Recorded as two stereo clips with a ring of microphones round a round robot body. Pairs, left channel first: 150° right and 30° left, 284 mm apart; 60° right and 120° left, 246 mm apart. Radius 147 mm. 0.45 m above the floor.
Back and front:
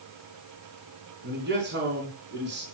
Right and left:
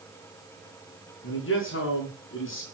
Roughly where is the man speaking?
Ahead.